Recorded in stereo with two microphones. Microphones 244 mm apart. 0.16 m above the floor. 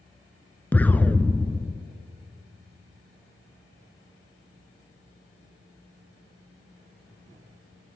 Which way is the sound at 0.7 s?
5° left (ahead or behind).